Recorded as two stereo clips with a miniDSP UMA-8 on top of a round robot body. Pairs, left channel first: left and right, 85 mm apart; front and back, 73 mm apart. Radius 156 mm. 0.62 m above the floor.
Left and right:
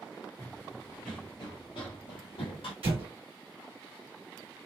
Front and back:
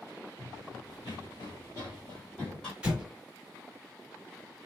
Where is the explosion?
100° right, 1.0 m.